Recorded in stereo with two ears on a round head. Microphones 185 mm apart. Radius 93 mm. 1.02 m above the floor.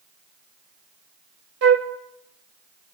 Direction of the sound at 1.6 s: 65° right (ahead or behind).